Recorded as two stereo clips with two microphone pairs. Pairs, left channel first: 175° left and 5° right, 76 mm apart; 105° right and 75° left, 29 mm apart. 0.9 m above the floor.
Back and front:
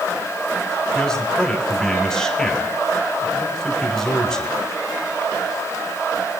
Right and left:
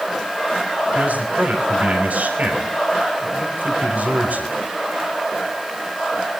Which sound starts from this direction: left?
A man speaking, at 0.9 s.